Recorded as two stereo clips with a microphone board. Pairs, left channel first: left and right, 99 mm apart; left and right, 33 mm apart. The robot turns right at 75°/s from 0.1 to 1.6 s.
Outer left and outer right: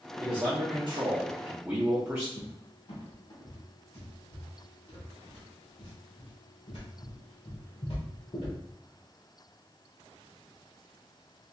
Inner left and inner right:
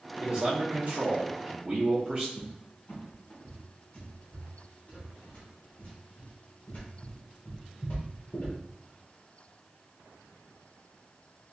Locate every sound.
0.2 s a man speaking: 130° right, 0.8 m; by 2.3 s 25° right, 0.8 m
2.4 s a cupboard door: 65° left (ahead or behind), 1.3 m